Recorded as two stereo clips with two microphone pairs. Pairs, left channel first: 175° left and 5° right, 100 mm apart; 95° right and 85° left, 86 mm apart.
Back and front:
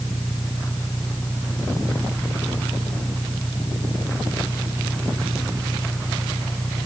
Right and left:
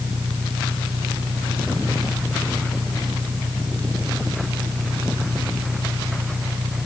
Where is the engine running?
105° left.